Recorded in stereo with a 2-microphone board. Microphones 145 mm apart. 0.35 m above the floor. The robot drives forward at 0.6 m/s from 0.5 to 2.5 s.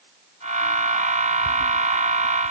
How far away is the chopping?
I don't hear chopping.